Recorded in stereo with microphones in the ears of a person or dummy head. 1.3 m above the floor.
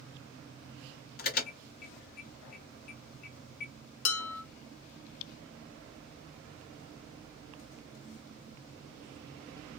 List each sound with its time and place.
1.2 s an alarm: 50° left (ahead or behind), 1.8 m
4.0 s dishes clattering: 75° left (ahead or behind), 1.5 m